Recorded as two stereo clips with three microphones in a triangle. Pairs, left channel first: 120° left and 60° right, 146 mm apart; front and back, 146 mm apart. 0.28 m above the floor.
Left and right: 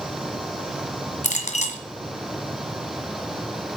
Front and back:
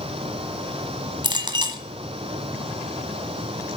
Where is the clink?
130° left, 1.6 m.